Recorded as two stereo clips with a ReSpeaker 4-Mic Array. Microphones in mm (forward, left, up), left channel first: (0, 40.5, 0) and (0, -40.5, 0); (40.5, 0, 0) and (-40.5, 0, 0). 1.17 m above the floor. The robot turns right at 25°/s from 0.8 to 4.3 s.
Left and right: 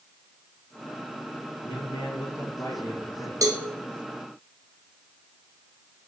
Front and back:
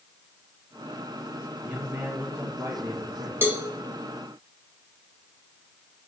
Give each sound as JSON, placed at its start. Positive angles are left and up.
{"t": 1.6, "sound": "a man speaking", "azimuth_deg": 105, "distance_m": 1.4}
{"t": 3.4, "sound": "a cowbell", "azimuth_deg": -125, "distance_m": 0.9}